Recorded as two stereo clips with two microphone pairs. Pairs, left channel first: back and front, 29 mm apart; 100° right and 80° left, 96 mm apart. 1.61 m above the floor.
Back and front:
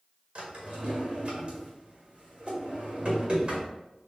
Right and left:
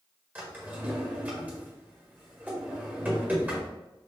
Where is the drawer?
20° left, 1.6 m.